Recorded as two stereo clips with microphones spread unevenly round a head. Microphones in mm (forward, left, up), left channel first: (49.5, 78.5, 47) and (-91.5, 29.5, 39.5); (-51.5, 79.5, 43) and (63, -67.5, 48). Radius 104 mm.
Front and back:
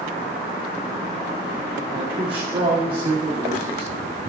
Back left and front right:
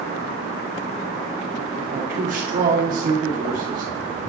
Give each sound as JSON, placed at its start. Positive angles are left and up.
{"t": 1.9, "sound": "a man speaking", "azimuth_deg": -100, "distance_m": 1.9}